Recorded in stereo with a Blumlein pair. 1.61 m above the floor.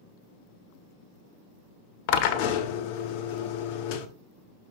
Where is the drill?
45° left, 1.0 m.